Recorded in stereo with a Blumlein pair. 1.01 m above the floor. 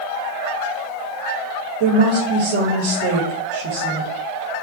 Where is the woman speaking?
50° right, 1.9 m.